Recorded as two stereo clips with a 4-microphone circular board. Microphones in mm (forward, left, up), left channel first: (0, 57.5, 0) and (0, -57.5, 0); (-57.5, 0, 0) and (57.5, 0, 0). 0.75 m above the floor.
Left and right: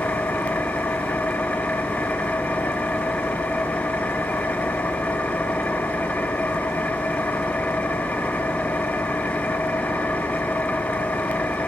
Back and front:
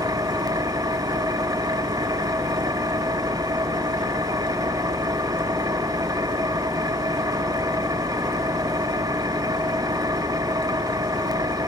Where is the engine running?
20° left, 0.8 m.